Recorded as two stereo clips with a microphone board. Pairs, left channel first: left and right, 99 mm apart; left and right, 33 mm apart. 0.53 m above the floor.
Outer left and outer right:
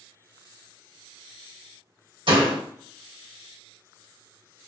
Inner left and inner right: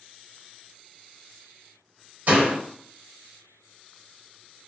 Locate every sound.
2.3 s a door slam: 60° right (ahead or behind), 1.6 m